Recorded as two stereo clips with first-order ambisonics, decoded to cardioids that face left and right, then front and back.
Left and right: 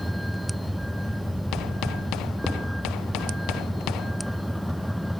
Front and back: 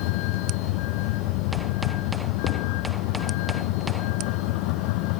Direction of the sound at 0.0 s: Straight ahead.